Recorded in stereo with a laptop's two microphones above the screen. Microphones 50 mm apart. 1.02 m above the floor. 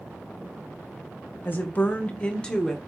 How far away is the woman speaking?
About 0.9 m.